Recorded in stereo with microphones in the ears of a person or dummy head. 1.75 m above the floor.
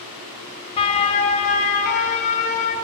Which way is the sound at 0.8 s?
35° left (ahead or behind).